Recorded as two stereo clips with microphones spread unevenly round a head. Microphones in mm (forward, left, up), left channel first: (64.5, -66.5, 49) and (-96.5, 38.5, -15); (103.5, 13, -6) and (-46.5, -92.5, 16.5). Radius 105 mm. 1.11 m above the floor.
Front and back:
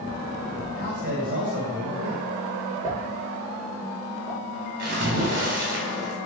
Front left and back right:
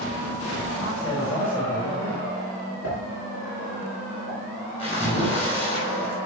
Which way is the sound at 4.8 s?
100° left.